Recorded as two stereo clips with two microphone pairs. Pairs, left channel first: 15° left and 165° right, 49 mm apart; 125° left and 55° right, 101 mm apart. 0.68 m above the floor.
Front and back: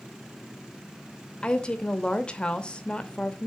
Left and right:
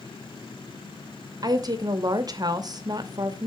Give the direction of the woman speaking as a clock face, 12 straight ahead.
1 o'clock.